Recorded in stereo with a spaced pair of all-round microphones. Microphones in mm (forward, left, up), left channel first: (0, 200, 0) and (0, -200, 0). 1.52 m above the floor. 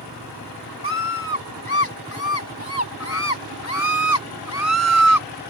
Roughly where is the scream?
Left.